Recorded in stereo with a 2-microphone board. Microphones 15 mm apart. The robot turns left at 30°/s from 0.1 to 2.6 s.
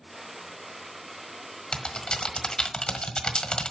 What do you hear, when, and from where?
1.7 s typing on a keyboard: 90° left, 1.3 m; by 3.7 s 65° left (ahead or behind), 1.3 m